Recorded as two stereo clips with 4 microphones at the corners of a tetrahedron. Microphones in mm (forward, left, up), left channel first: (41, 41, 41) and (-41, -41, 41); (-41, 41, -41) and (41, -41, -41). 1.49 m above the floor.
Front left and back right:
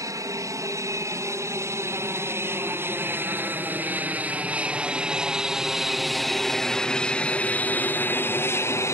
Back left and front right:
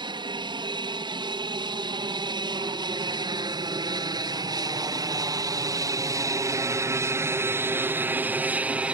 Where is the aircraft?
80° right; by 8.9 s 25° left.